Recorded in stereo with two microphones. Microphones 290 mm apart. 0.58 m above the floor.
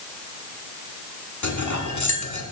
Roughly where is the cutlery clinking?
Left.